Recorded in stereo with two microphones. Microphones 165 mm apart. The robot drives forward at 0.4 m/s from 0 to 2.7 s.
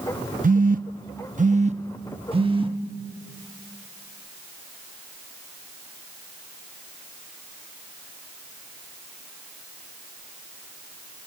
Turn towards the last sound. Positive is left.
turn(degrees=-30)  # may be behind; listen again after turning